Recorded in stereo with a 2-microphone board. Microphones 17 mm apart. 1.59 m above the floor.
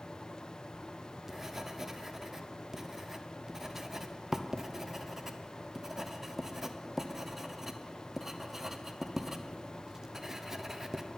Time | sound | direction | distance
0.7 | writing | 25° right (ahead or behind) | 0.8 m